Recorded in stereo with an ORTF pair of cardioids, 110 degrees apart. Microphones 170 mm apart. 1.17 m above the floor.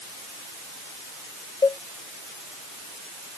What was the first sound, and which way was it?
A cowbell, 20° left.